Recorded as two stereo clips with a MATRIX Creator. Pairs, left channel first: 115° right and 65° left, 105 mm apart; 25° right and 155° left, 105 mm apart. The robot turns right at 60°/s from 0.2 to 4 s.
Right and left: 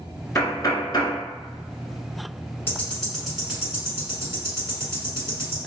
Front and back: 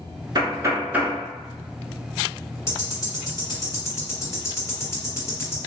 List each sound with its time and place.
0.3 s knocking: 170° right, 1.0 m; by 1.2 s 120° right, 1.0 m
2.7 s ticking: 60° right, 1.6 m; by 5.6 s 20° left, 1.6 m